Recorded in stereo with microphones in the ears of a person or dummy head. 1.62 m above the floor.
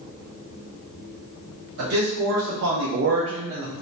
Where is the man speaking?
75° right (ahead or behind), 1.1 m; by 3.7 s 10° right (ahead or behind), 0.5 m.